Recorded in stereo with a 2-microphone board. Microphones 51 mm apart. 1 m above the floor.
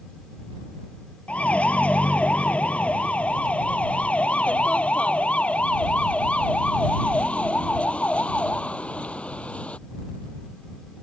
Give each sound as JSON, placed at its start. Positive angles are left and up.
{"t": 1.3, "sound": "a siren", "side_deg": 25}